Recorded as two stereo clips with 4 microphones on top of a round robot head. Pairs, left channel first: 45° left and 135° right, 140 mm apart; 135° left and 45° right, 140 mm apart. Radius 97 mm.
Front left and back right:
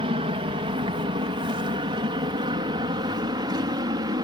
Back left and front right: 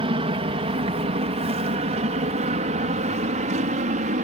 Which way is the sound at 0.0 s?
90° right.